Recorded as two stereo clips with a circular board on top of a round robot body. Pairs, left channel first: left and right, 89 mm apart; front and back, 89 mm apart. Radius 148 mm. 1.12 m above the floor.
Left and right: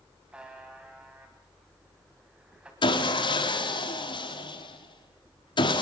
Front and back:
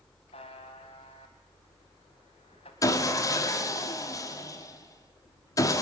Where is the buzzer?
10° right, 1.3 m.